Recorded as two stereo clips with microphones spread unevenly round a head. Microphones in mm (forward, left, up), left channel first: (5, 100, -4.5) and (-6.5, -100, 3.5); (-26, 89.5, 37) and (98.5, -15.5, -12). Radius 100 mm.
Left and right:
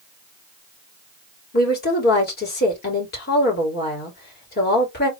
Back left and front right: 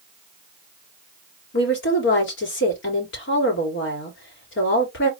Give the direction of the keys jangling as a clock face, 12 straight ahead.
I don't hear keys jangling.